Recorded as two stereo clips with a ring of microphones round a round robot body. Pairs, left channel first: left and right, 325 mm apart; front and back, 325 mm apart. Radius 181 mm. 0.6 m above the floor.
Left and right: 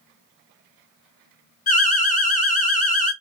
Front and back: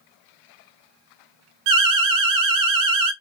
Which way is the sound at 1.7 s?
155° left.